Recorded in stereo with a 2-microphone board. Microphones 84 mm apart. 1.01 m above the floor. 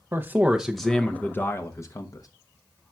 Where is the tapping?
I don't hear tapping.